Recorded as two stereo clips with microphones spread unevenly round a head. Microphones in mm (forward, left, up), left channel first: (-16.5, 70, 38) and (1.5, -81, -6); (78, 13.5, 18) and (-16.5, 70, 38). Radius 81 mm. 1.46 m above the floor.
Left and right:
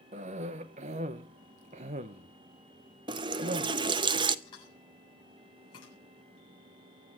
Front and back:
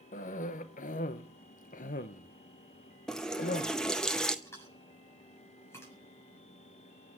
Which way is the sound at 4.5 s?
35° left.